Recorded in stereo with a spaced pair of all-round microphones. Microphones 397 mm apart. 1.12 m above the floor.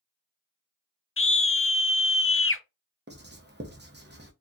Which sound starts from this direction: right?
Writing, at 3.1 s.